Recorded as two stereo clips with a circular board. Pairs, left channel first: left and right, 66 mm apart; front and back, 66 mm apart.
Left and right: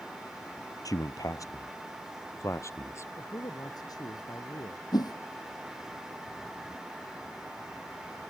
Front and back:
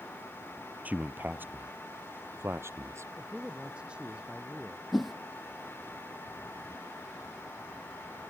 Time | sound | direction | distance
0.8 | a man speaking | 115° left | ?
3.2 | a man speaking | 105° left | ?
4.9 | a whoosh | 90° left | ?